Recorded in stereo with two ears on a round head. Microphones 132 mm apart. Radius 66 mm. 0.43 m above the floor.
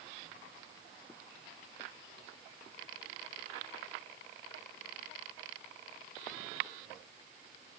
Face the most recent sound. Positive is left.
No sound to turn to.